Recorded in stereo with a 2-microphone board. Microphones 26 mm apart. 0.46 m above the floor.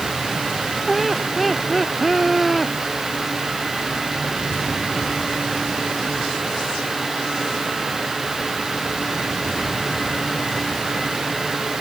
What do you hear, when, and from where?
0.9 s laughter: centre (ahead or behind)